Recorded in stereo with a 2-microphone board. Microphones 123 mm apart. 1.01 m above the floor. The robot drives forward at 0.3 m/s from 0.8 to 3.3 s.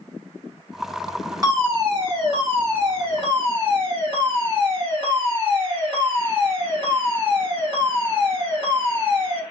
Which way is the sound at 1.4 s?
30° right (ahead or behind).